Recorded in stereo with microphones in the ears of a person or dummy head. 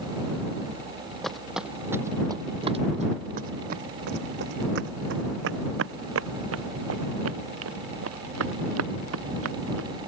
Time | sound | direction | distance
1.2 | footsteps | 5° left (ahead or behind) | ?